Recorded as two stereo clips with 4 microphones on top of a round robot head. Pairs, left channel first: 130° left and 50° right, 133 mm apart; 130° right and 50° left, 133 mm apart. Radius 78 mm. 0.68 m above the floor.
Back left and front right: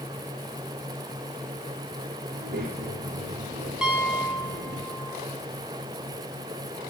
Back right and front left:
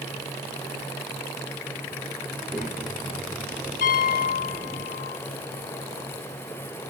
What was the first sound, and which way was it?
A child speaking, 40° right.